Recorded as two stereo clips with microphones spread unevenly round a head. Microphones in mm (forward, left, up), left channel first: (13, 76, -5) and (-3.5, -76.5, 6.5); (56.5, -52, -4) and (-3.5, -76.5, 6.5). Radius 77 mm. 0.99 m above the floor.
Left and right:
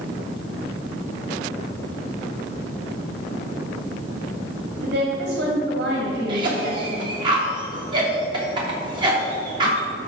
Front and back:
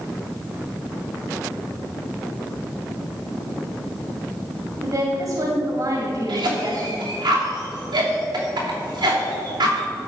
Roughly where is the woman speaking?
Behind right.